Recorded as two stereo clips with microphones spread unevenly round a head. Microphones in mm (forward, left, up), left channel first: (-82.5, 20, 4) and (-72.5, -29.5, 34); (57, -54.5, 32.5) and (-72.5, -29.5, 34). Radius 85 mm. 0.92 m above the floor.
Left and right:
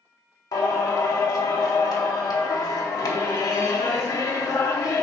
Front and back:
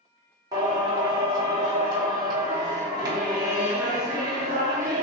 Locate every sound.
0.5 s singing: 100° left, 0.8 m